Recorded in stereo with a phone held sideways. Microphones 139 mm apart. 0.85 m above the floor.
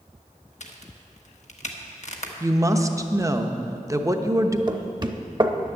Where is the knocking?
30° right (ahead or behind), 0.8 m.